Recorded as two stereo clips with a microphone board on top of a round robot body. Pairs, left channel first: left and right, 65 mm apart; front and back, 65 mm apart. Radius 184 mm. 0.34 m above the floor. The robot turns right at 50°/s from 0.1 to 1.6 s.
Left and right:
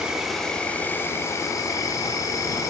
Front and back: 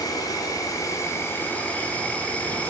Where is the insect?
10° right, 0.9 m; by 2.7 s 65° left, 0.9 m.